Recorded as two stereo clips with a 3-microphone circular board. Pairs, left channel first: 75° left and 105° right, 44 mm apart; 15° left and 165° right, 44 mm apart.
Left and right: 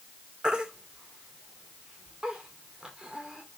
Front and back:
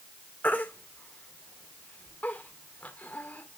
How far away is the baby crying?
About 1.6 m.